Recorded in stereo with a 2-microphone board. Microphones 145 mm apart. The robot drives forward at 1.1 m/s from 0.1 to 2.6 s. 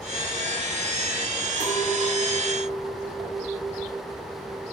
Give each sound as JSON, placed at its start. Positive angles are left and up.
{"t": 1.6, "sound": "a clink", "side_deg": -30, "distance_m": 1.4}